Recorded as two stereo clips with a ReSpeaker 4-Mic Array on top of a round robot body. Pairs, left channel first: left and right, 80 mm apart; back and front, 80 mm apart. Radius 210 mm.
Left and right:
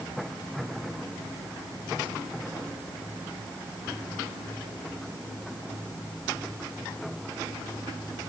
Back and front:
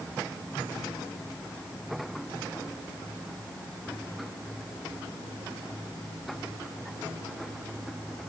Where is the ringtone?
No ringtone in this recording.